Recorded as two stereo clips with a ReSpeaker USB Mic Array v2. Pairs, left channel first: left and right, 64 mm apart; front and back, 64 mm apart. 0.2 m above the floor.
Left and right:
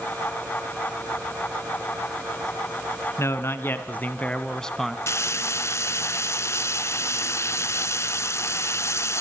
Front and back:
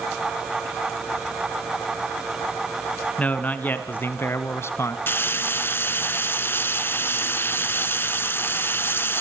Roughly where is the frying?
Ahead left.